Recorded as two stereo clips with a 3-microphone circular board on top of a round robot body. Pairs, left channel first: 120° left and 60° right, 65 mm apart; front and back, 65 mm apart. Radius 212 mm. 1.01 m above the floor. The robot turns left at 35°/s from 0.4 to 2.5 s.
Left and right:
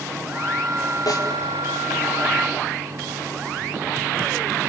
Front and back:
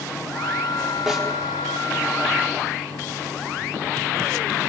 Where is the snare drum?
100° left, 4.5 m; by 1.3 s 95° left, 4.5 m.